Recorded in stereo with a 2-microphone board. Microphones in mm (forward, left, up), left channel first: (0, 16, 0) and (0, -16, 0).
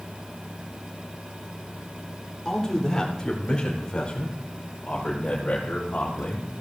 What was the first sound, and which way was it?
A man speaking, 15° left (ahead or behind).